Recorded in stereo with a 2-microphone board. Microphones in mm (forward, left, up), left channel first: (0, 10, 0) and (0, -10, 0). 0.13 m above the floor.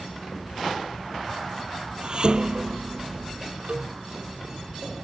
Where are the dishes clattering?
45° right (ahead or behind).